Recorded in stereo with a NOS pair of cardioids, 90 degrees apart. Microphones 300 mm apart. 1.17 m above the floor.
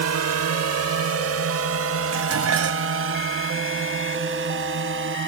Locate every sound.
0.0 s a drone: 60° right; by 5.3 s 40° right
2.1 s dishes clattering: 55° right